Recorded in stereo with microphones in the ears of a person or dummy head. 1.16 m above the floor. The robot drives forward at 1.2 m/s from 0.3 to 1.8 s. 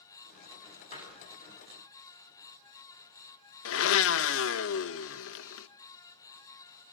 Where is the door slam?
40° left (ahead or behind), 8 m; by 1.6 s 35° left (ahead or behind), 9 m.